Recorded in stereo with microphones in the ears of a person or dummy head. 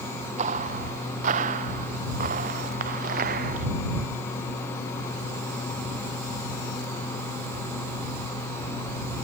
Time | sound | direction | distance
0.4 | footsteps | 40° right (ahead or behind) | ?